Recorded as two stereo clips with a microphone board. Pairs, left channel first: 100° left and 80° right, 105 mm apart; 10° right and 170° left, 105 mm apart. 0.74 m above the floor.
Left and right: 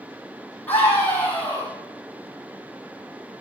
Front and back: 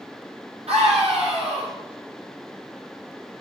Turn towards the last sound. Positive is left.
turn(degrees=175)